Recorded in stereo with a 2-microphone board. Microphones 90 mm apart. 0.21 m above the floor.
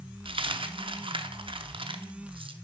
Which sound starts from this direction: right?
A dropped coin, at 0.2 s.